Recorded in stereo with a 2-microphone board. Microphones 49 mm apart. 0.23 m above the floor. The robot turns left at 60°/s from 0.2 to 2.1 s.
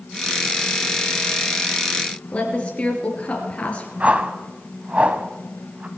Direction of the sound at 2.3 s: 30° left (ahead or behind).